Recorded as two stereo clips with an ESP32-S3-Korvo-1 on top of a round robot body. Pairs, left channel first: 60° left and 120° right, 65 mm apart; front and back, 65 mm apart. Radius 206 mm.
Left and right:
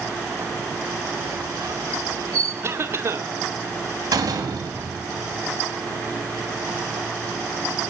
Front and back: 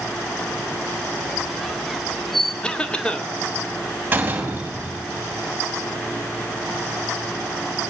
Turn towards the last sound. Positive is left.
turn(degrees=-115)